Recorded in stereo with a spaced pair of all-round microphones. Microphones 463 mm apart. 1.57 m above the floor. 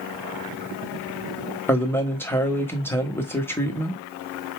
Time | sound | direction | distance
1.7 | a man speaking | 5° left (ahead or behind) | 1.1 m